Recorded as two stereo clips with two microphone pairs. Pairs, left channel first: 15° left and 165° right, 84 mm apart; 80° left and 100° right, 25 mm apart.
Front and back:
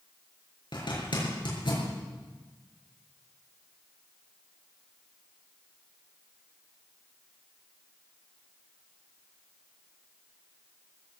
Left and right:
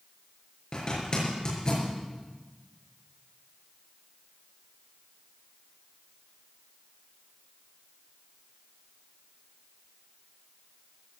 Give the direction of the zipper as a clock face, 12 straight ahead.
11 o'clock.